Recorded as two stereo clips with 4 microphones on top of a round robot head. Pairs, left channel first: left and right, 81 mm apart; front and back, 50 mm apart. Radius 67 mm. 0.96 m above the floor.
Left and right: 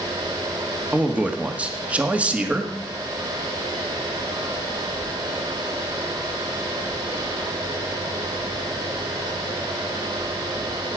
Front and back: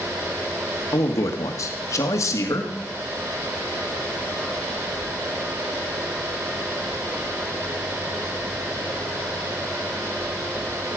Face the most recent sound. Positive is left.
turn(degrees=-15)